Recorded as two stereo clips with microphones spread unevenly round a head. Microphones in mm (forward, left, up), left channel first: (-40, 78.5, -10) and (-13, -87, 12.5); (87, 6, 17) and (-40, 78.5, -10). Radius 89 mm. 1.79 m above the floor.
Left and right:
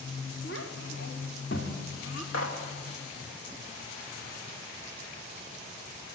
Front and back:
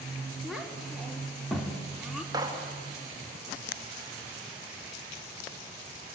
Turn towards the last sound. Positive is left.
turn(degrees=80)